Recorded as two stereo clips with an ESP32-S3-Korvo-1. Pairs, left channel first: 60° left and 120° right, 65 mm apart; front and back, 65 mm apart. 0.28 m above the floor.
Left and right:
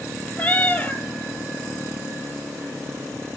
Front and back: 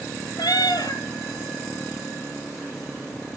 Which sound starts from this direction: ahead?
A cat meowing, at 0.4 s.